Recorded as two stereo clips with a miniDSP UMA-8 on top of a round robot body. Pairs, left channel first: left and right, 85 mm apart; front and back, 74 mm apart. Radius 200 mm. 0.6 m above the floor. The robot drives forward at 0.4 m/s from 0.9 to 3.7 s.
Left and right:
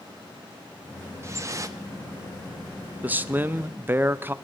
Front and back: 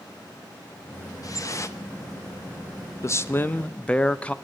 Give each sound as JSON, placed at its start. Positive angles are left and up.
{"t": 1.2, "sound": "dripping", "azimuth_deg": -35, "distance_m": 1.0}
{"t": 3.0, "sound": "a man speaking", "azimuth_deg": -25, "distance_m": 0.8}